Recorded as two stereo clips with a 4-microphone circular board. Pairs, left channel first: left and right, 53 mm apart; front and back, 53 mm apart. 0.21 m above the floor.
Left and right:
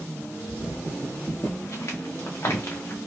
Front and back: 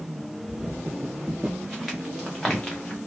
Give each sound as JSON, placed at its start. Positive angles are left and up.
{"t": 0.5, "sound": "footsteps", "azimuth_deg": 115, "distance_m": 1.7}